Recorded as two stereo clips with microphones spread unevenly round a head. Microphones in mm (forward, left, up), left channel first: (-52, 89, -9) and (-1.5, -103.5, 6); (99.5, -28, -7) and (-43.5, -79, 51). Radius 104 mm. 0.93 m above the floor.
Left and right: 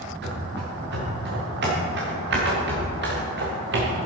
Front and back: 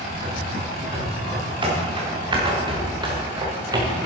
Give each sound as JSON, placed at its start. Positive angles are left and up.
{"t": 0.2, "sound": "running footsteps", "azimuth_deg": -110, "distance_m": 6.0}